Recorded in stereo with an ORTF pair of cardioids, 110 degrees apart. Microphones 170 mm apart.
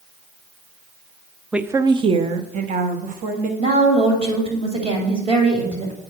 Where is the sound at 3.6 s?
40° right, 3 m.